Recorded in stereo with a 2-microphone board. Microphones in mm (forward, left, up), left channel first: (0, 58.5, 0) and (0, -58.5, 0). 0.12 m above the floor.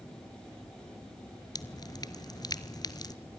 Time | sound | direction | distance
1.6 | dripping | 35° left (ahead or behind) | 0.8 m